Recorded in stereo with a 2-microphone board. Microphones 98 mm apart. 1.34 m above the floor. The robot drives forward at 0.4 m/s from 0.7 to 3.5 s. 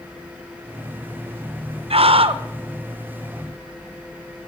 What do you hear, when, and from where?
1.9 s a scream: 75° right (ahead or behind), 0.9 m; by 2.4 s 65° right (ahead or behind), 0.9 m